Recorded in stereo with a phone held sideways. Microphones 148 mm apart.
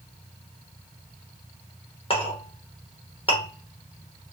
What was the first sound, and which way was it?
A clink, 40° left (ahead or behind).